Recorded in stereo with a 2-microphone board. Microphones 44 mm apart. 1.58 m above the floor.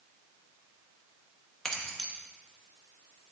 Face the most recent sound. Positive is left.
turn(degrees=10)  # may be behind; listen again after turning